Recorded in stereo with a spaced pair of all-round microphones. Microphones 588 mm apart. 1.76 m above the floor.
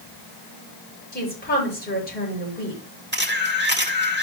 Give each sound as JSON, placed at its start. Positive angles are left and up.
{"t": 1.1, "sound": "a woman speaking", "side_deg": 15, "distance_m": 7.0}
{"t": 3.1, "sound": "a camera shutter", "side_deg": -15, "distance_m": 1.9}